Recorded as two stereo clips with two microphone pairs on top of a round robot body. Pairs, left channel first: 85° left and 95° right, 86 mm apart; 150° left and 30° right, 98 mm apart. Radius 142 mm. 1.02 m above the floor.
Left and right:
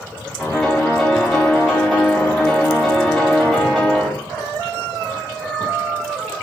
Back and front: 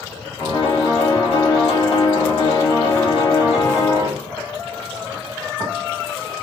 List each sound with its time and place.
0.4 s a piano: 175° left, 1.4 m